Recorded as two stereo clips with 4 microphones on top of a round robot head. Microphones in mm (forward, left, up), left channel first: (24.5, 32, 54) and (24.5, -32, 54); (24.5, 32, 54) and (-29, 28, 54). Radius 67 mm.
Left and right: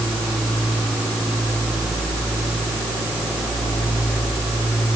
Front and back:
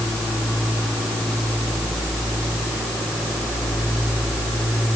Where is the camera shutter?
No camera shutter in this recording.